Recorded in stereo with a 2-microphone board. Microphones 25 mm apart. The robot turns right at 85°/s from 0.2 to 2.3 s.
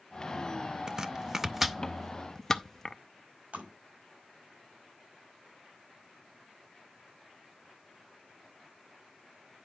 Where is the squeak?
No squeak in this recording.